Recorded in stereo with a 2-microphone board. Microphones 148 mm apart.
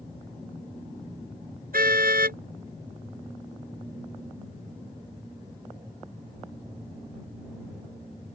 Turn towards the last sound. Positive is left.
turn(degrees=-75)  # may be behind; listen again after turning